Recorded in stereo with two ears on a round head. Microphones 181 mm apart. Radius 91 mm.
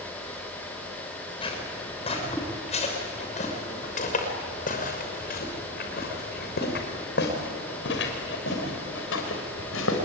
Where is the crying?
No crying in this recording.